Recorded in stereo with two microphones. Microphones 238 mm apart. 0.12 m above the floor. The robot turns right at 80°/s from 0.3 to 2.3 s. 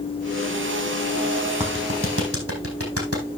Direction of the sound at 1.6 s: 25° right (ahead or behind).